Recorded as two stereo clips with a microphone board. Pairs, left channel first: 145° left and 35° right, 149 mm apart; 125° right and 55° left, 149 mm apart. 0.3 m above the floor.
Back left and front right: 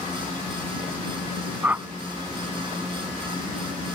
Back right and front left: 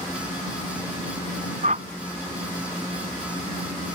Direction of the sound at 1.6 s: 40° left.